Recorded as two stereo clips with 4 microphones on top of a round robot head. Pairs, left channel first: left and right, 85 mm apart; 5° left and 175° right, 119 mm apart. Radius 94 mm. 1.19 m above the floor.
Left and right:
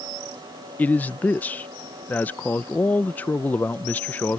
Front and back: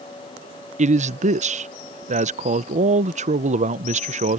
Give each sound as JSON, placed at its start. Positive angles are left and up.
{"t": 0.8, "sound": "a man speaking", "azimuth_deg": 165}